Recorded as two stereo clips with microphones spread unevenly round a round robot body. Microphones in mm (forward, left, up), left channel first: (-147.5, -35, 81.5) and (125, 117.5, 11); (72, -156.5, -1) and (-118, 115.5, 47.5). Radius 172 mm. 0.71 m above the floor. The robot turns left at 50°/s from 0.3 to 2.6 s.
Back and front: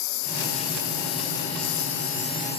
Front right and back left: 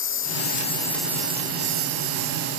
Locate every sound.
0.0 s a lawn mower: 110° right; by 2.6 s 135° left